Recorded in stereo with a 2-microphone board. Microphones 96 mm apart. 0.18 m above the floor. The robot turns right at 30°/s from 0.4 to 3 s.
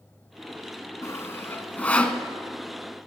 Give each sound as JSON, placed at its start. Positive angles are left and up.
{"t": 1.0, "sound": "sawing", "side_deg": 30, "distance_m": 1.0}